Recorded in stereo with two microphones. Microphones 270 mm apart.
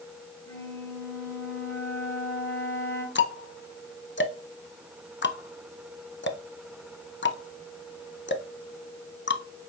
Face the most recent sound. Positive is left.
turn(degrees=45)  # may be behind; listen again after turning